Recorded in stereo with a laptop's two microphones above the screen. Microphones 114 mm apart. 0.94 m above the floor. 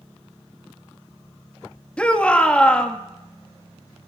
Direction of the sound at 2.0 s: 10° left (ahead or behind).